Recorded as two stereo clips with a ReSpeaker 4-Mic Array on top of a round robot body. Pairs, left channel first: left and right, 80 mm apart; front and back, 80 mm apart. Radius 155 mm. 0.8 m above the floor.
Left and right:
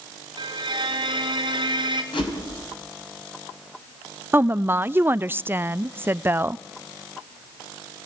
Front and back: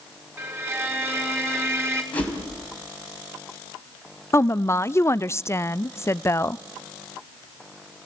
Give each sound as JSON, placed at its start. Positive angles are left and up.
{"t": 0.4, "sound": "a violin", "azimuth_deg": -120, "distance_m": 2.5}
{"t": 2.1, "sound": "a whoosh", "azimuth_deg": 75, "distance_m": 4.0}
{"t": 4.3, "sound": "a woman speaking", "azimuth_deg": -40, "distance_m": 0.5}